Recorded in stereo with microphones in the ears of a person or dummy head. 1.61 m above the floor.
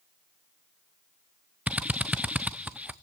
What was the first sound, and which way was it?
A drill, 10° right (ahead or behind).